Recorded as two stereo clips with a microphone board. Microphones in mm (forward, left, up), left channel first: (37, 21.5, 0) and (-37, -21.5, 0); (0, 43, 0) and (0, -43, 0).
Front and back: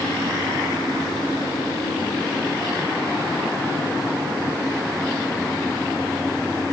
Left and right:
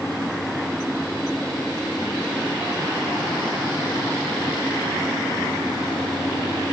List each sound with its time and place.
Only background noise.